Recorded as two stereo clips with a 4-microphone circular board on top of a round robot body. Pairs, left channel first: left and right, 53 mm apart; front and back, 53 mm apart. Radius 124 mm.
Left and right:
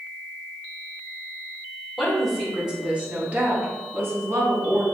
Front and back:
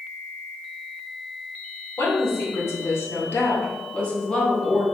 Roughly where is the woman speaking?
Ahead.